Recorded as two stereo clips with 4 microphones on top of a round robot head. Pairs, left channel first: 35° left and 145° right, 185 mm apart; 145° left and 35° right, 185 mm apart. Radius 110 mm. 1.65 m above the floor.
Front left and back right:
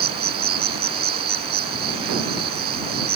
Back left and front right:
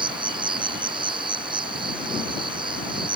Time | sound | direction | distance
0.0 | an insect | 105° right | ?